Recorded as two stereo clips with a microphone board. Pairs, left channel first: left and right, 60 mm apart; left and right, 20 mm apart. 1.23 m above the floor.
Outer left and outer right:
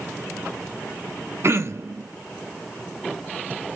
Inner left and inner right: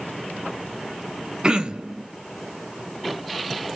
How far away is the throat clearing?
About 0.6 m.